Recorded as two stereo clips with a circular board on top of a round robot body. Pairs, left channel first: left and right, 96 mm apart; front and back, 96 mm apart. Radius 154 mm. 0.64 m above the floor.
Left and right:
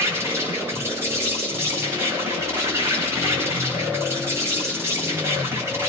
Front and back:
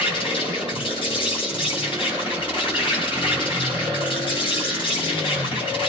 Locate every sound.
0.0 s an insect: 25° right, 6 m